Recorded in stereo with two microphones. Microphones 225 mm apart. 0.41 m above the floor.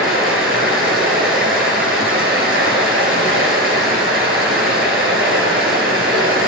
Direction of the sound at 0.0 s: 65° right (ahead or behind).